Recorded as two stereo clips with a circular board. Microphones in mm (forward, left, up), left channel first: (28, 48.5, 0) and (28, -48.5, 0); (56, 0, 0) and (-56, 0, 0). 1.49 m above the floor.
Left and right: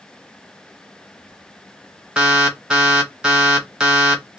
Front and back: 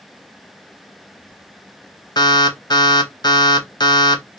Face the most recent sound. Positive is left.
turn(degrees=-10)